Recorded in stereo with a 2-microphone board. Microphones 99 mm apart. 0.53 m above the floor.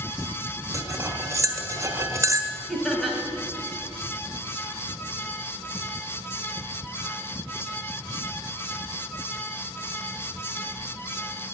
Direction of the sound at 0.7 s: 25° right (ahead or behind).